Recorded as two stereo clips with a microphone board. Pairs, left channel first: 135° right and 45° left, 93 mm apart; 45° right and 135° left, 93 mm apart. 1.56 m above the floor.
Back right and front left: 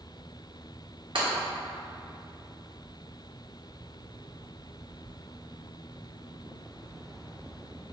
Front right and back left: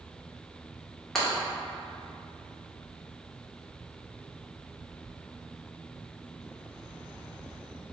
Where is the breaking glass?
40° left, 1.4 m.